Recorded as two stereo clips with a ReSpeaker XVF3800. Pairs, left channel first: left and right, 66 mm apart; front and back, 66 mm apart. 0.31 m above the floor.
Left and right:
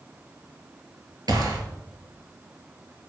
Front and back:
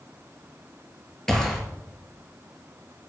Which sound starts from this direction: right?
A gunshot, at 1.3 s.